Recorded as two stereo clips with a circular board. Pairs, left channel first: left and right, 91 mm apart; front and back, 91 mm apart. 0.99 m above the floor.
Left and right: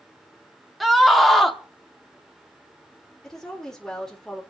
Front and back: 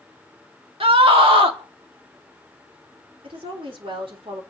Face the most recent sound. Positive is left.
turn(degrees=175)